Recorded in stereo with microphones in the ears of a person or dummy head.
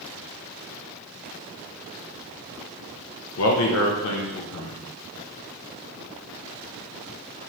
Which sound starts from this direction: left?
A man speaking, at 3.4 s.